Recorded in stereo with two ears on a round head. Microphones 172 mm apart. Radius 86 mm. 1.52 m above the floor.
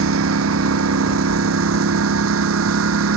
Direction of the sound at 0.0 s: 80° right.